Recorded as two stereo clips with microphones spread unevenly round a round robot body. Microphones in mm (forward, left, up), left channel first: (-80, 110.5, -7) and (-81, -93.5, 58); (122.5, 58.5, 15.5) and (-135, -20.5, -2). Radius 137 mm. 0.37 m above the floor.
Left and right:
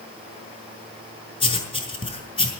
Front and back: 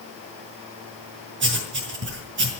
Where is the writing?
150° left, 5.5 m.